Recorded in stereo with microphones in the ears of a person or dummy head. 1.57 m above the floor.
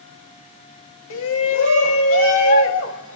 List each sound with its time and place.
1.1 s a shout: 65° left (ahead or behind), 1.2 m